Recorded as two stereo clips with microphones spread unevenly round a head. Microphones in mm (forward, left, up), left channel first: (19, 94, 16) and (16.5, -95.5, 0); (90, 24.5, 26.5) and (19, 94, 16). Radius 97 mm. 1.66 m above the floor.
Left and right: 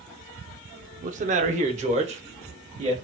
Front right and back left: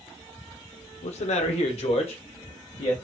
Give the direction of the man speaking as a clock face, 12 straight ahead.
1 o'clock.